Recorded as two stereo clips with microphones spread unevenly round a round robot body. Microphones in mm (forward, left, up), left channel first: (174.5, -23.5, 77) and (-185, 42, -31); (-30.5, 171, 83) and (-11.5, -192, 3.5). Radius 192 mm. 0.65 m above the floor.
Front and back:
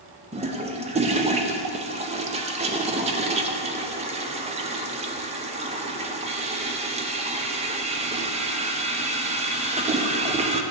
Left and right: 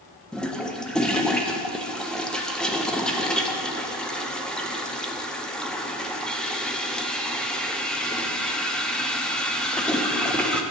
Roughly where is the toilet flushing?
Behind.